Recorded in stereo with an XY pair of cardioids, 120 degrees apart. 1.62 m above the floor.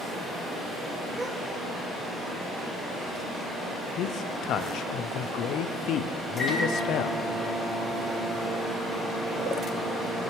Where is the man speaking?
65° left, 0.6 m.